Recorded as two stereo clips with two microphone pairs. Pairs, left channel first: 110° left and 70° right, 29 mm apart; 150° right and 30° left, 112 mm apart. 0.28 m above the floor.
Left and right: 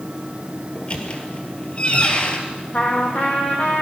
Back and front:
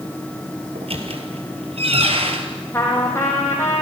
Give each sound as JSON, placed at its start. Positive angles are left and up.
{"t": 0.8, "sound": "a squeak", "azimuth_deg": 60, "distance_m": 2.5}
{"t": 2.7, "sound": "a trumpet", "azimuth_deg": 145, "distance_m": 4.0}